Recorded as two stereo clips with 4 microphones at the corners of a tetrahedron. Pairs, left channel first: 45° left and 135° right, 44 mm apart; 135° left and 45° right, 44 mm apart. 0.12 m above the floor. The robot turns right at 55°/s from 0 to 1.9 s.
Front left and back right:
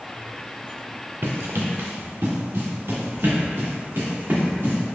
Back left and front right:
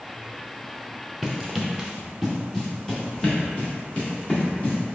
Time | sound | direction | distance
1.2 | running footsteps | 140° right | 0.7 m